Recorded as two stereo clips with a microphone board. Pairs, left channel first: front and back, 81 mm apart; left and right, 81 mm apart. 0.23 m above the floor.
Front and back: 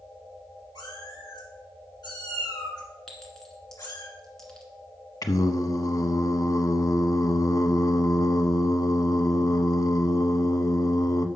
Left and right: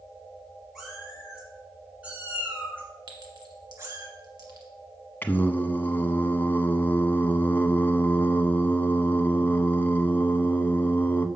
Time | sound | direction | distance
0.8 | a cat meowing | 5° right | 3 m
3.1 | a clink | 80° right | 1.9 m
5.2 | singing | 30° left | 0.6 m